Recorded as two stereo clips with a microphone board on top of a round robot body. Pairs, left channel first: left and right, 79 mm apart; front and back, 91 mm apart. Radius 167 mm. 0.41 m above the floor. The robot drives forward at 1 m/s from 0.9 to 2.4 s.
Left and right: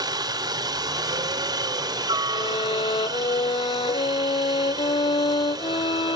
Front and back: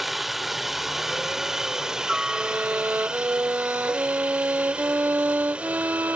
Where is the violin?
110° left.